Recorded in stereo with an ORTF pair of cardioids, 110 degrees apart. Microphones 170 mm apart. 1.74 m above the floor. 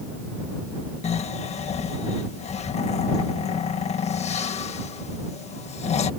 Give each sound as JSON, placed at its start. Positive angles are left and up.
{"t": 1.0, "sound": "snoring", "azimuth_deg": 40}